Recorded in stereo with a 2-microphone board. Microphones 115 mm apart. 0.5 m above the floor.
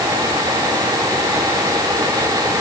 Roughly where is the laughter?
I don't hear laughter.